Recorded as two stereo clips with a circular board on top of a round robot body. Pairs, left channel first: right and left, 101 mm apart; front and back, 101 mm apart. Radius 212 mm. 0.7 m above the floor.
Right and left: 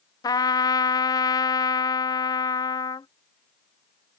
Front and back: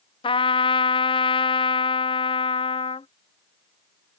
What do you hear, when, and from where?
0.2 s a trumpet: 35° right